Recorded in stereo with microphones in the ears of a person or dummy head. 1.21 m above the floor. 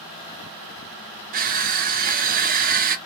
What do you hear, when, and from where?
1.3 s crushing: 40° right (ahead or behind), 0.5 m